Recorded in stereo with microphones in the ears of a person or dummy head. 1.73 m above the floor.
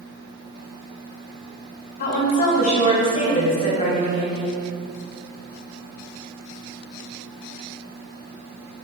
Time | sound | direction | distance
2.0 | a woman speaking | 45° left (ahead or behind) | 1.3 m